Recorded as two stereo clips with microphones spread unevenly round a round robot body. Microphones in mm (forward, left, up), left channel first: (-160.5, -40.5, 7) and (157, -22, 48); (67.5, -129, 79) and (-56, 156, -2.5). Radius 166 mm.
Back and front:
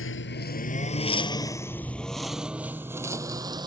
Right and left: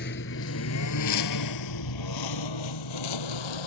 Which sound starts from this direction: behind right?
A lawn mower, at 0.0 s.